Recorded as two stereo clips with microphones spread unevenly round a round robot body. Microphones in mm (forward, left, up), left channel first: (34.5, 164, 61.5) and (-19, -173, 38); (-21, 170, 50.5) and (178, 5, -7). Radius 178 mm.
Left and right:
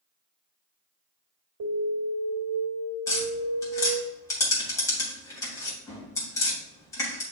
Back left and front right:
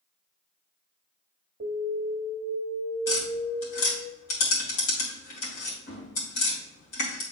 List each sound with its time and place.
1.6 s an alarm: 100° right, 2 m
3.1 s tapping: 160° left, 3 m